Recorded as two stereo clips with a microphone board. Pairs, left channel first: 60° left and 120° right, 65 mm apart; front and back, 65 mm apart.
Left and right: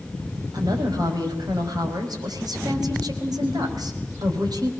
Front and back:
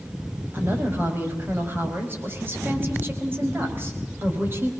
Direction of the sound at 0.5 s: 125° right.